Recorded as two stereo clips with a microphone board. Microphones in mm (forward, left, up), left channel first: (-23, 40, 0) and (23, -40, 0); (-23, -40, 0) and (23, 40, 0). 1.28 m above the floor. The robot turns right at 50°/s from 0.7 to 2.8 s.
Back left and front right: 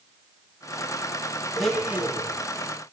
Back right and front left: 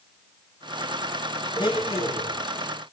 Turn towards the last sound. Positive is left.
turn(degrees=-90)